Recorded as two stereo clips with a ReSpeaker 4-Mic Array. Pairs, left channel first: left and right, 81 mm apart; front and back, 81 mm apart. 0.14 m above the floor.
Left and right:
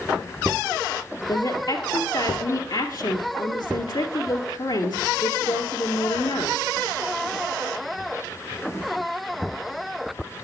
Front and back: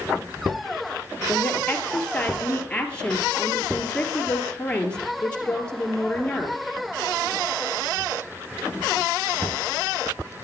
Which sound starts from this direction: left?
A woman speaking, at 1.3 s.